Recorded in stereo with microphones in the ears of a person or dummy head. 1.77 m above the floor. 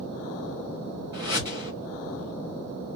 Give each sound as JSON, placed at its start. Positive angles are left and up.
{"t": 1.1, "sound": "a whoosh", "side_deg": -20, "distance_m": 1.5}